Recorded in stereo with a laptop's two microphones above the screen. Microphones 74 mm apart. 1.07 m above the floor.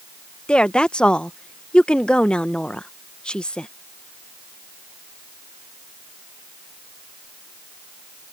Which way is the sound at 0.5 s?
15° left (ahead or behind).